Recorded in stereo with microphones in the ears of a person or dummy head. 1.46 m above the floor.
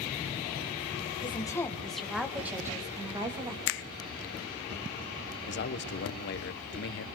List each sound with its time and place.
1.2 s a woman speaking: 30° left (ahead or behind), 1.5 m; by 3.6 s 20° right (ahead or behind), 3 m
3.7 s a finger snap: 60° left (ahead or behind), 0.5 m
5.5 s a man speaking: 60° left (ahead or behind), 1.1 m